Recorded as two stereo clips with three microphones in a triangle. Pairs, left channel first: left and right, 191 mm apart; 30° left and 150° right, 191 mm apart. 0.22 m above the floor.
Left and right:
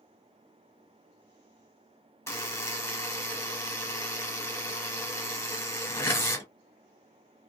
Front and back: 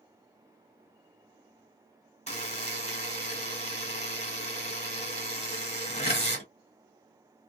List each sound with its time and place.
2.3 s a buzzer: 25° left, 1.0 m